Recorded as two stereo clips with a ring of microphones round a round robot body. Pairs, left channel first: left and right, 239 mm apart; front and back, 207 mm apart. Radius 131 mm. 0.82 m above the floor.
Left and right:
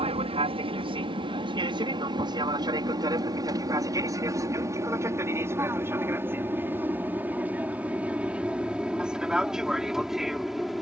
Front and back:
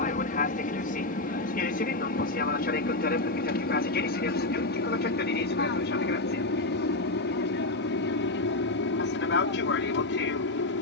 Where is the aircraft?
35° right; by 10.8 s straight ahead.